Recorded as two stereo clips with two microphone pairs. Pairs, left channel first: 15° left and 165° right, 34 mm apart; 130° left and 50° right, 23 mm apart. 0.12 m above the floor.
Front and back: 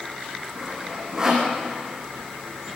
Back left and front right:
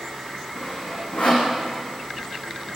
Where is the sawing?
125° left, 7 m.